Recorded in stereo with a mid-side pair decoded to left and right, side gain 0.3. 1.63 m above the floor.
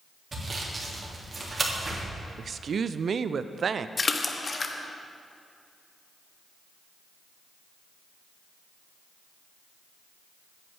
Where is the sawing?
45° right, 3 m.